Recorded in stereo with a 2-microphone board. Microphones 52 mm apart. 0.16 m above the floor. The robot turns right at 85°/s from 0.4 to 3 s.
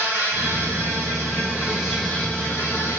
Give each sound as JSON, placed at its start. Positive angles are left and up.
{"t": 0.0, "sound": "an insect", "azimuth_deg": -130, "distance_m": 4.0}